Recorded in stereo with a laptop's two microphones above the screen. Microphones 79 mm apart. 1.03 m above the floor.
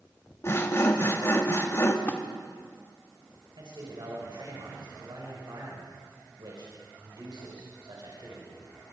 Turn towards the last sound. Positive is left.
turn(degrees=-70)  # may be behind; listen again after turning